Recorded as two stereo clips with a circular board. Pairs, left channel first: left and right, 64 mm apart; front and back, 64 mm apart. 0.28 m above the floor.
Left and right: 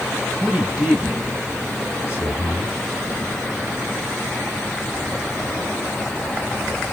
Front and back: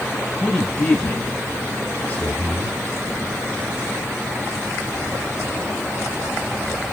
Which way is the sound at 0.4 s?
65° right.